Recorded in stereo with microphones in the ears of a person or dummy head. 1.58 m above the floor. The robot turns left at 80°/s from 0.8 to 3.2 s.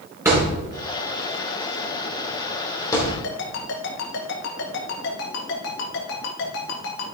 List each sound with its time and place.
0.2 s a thud: 10° right (ahead or behind), 2.5 m; by 3.1 s centre (ahead or behind), 2.5 m
3.2 s a ringtone: 75° left (ahead or behind), 2 m